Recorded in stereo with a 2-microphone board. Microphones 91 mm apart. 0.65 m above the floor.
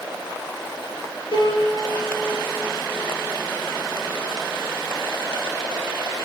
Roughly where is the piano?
Left.